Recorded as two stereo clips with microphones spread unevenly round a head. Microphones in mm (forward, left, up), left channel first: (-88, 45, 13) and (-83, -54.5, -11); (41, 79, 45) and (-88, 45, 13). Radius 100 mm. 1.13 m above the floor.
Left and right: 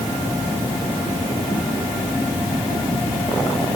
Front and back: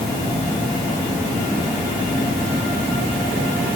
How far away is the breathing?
No breathing in this recording.